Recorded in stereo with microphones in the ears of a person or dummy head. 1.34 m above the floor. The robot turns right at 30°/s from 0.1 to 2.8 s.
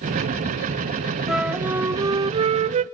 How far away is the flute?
About 0.5 m.